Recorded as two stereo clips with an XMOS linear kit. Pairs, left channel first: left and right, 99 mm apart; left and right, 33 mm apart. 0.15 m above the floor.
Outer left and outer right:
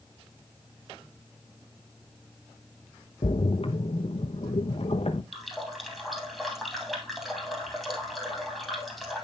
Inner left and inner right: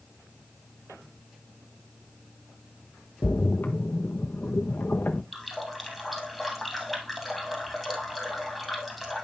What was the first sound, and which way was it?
A splash, 80° left.